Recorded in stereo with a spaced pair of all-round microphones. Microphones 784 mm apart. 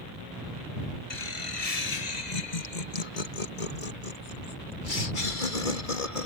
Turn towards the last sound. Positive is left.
turn(degrees=80)